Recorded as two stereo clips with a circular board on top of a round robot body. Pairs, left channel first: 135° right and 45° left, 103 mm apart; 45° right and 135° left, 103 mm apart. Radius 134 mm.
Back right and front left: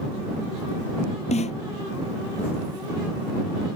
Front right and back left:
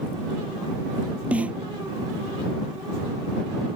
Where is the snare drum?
145° right.